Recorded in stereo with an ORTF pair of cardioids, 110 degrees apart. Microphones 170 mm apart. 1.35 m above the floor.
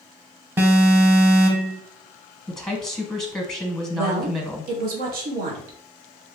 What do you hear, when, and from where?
0.6 s an alarm: 10° right, 0.9 m
2.5 s a woman speaking: straight ahead, 1.0 m
3.9 s a woman speaking: 65° right, 1.2 m